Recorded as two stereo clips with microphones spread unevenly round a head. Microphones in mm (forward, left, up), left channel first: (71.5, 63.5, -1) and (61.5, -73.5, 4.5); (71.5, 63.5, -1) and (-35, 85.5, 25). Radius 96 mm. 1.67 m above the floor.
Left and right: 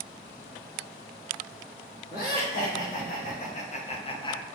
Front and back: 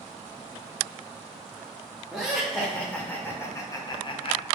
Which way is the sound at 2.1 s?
80° left.